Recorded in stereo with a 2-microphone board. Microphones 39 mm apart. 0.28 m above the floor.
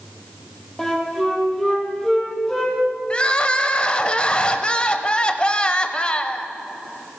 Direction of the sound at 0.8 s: 10° left (ahead or behind).